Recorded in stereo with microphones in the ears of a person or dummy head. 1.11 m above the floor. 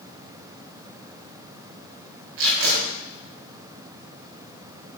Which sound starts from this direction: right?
Tape being pulled, at 2.4 s.